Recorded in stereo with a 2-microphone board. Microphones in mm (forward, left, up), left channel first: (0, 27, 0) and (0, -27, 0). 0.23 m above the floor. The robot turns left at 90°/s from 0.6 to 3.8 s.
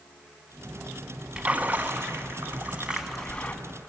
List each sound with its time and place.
1.4 s a splash: 20° right, 1.3 m; by 3.5 s 145° left, 1.3 m